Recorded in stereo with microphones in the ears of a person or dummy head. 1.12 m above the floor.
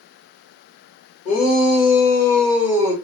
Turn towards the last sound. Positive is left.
turn(degrees=-15)  # may be behind; listen again after turning